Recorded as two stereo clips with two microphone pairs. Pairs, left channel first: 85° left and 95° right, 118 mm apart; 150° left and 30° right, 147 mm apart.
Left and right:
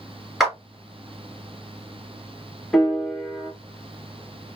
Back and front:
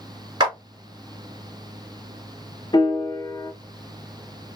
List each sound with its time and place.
0.4 s a clap: 5° right, 1.7 m
2.7 s a piano: 170° left, 1.0 m